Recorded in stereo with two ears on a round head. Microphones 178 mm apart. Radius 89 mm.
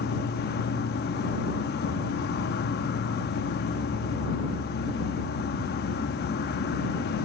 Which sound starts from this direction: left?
An insect, at 0.0 s.